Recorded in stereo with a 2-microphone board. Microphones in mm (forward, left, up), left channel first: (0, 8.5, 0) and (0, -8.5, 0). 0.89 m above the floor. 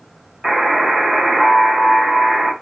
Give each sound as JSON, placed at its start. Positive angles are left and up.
{"t": 0.4, "sound": "a buzzer", "side_deg": -50, "distance_m": 1.3}